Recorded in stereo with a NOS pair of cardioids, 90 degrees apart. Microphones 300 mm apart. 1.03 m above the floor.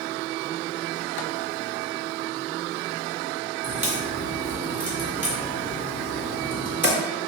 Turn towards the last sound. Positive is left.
turn(degrees=-5)